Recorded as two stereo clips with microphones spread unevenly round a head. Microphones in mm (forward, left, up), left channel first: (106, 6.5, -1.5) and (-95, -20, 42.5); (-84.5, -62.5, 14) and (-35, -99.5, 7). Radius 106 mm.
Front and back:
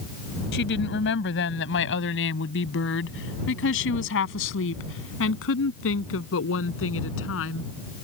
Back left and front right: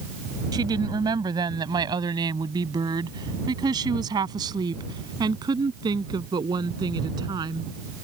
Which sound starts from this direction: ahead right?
A woman speaking, at 0.5 s.